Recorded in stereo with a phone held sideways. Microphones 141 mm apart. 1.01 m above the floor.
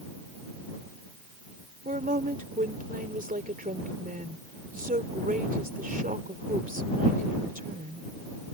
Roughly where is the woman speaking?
Right.